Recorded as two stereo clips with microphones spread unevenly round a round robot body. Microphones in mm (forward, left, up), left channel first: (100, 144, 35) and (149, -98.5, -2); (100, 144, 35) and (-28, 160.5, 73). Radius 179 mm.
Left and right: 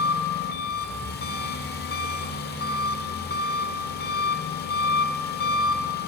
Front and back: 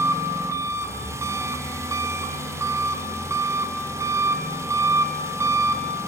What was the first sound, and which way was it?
An engine running, 90° left.